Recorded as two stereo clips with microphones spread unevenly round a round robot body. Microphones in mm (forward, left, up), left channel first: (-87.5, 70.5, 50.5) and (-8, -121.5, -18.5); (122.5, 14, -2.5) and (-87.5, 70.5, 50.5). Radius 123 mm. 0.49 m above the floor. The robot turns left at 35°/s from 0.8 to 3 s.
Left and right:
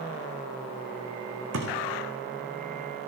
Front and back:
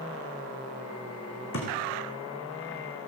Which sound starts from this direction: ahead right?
A thud, at 1.5 s.